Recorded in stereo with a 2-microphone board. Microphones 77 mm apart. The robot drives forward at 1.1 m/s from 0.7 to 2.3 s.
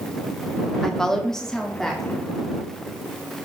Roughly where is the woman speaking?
Centre.